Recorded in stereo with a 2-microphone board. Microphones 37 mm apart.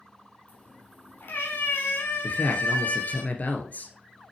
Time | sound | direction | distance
0.5 | a cat meowing | 50° left (ahead or behind) | 3 m
2.2 | a man speaking | 45° left (ahead or behind) | 1.7 m